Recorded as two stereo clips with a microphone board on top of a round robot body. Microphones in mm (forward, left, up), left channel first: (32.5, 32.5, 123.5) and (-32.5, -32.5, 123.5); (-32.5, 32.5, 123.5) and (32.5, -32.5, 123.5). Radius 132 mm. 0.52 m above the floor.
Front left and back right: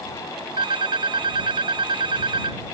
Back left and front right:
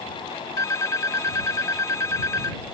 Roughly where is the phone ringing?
Behind.